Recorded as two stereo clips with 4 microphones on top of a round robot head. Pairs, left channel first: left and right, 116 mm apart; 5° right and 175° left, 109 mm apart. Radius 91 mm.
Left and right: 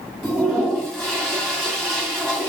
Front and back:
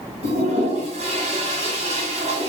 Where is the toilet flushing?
Straight behind, 1.6 m.